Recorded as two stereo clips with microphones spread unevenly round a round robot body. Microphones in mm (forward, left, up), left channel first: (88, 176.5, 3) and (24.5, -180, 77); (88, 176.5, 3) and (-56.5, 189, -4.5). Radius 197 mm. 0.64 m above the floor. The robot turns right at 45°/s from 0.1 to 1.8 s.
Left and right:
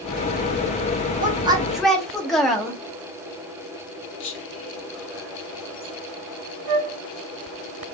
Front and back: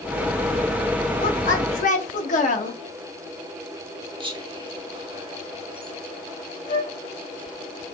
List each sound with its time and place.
1.2 s a woman speaking: 30° right, 0.9 m; by 2.8 s straight ahead, 0.9 m
4.2 s whispering: 125° left, 0.9 m
6.7 s a flute: 95° right, 1.2 m